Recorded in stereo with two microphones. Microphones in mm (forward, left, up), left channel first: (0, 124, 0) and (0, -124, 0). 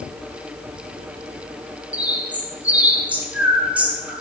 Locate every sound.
1.9 s a bird: 5° right (ahead or behind), 0.9 m